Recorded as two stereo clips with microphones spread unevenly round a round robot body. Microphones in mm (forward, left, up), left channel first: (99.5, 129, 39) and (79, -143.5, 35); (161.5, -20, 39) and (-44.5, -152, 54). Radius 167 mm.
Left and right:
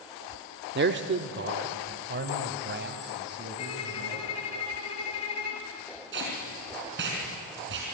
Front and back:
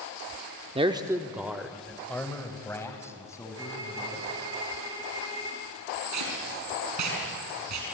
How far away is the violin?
About 2.5 m.